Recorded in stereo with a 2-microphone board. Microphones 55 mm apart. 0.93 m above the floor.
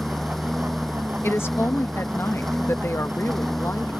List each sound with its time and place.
0.0 s a lawn mower: 5° left (ahead or behind)
1.2 s a woman speaking: 50° left (ahead or behind)